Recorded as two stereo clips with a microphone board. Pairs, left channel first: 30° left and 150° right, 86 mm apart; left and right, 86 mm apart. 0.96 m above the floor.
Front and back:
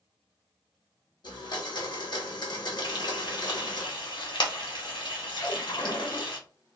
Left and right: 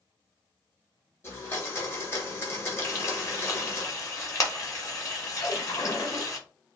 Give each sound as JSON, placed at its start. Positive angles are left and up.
{"t": 1.2, "sound": "a blender", "azimuth_deg": 35, "distance_m": 0.9}
{"t": 2.8, "sound": "frying", "azimuth_deg": 40, "distance_m": 0.9}
{"t": 5.4, "sound": "a splash", "azimuth_deg": 60, "distance_m": 1.2}